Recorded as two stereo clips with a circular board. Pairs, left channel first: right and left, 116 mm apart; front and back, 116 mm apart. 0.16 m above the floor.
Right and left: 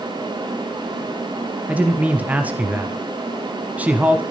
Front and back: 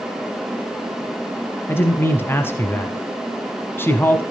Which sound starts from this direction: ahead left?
A man speaking, at 1.7 s.